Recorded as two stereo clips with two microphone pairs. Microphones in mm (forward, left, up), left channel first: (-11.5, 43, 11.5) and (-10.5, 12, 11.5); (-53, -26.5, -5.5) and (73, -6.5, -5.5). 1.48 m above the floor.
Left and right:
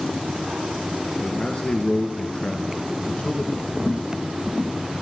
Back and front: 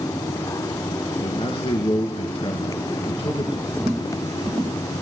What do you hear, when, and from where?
1.2 s a man speaking: 140° left, 2.0 m
3.7 s footsteps: 15° left, 2 m; by 5.0 s 5° left, 1.6 m